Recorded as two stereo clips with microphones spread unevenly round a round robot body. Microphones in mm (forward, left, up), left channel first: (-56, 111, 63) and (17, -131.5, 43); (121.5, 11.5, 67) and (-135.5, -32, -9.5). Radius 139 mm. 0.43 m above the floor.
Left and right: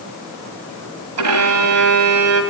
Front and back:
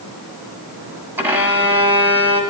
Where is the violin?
90° right, 1.7 m.